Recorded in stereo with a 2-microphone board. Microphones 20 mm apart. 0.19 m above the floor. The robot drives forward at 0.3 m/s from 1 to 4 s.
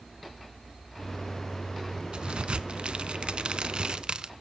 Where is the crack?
50° right (ahead or behind), 0.6 m.